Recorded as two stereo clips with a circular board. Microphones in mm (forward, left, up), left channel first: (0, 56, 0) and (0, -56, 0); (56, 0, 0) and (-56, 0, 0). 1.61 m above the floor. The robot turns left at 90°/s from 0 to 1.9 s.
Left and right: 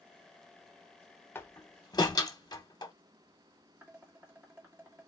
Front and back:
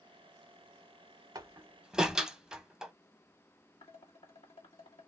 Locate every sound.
1.4 s a door slam: 145° left, 0.9 m; by 2.9 s 100° left, 0.9 m
3.8 s dishes clattering: 20° right, 2 m